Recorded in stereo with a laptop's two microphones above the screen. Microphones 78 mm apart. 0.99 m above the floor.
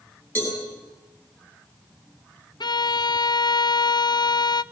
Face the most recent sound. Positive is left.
turn(degrees=65)  # may be behind; listen again after turning